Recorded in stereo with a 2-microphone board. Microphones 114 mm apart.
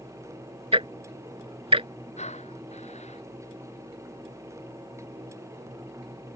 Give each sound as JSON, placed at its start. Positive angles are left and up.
{"t": 0.7, "sound": "ticking", "side_deg": -55}
{"t": 2.2, "sound": "breathing", "side_deg": 80}